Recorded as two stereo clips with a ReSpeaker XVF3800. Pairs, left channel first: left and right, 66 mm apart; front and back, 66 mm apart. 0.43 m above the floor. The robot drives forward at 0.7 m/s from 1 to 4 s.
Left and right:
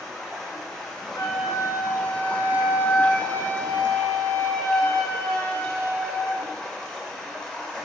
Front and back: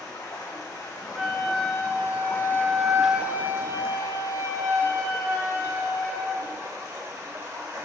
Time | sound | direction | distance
0.0 | running water | 10° left | 1.5 m
1.1 | a flute | 95° left | 1.4 m